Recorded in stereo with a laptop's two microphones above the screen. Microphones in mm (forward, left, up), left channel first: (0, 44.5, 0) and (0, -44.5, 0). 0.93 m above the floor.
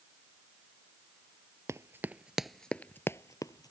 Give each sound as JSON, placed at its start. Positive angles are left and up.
{"t": 1.7, "sound": "running footsteps", "side_deg": -35}